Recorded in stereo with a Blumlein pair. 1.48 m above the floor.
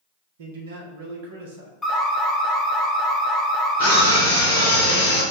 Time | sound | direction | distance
0.4 | a man speaking | 55° right | 1.1 m
1.8 | an alarm | 10° left | 0.8 m
3.8 | a scream | 55° right | 0.9 m